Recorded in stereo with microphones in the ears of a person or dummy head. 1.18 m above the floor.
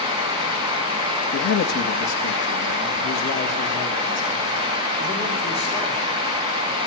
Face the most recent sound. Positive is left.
turn(degrees=30)  # may be behind; listen again after turning